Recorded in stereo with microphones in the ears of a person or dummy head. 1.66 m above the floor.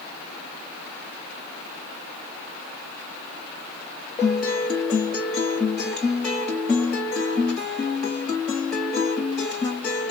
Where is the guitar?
5° left (ahead or behind), 1.4 m.